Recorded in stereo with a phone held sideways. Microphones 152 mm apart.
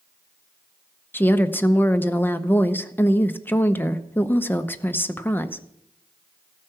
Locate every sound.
1.1 s a woman speaking: 15° left (ahead or behind), 0.7 m